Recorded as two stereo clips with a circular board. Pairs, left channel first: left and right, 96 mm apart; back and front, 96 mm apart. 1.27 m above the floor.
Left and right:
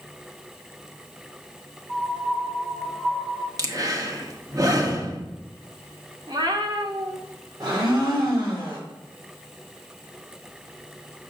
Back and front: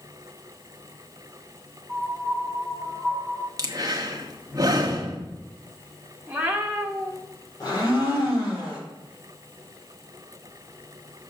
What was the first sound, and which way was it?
A piano, 110° right.